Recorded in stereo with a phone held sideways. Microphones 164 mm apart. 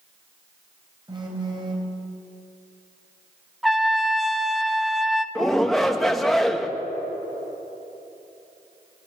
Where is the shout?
Centre (ahead or behind), 1.9 m.